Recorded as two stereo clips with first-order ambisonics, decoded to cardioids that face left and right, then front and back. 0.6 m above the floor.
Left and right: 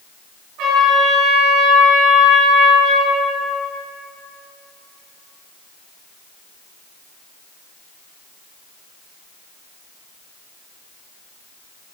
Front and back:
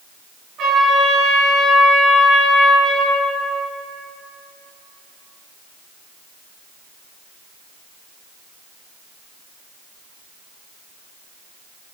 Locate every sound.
0.6 s a trumpet: 125° right, 4.5 m